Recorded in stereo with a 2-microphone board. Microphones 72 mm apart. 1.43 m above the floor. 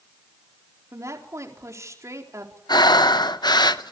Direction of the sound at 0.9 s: 40° right (ahead or behind).